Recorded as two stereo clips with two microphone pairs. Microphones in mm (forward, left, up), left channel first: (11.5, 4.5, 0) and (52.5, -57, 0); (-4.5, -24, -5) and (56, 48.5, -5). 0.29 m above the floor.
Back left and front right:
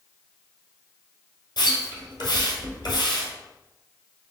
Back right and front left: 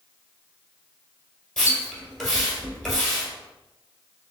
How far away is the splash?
About 1.6 m.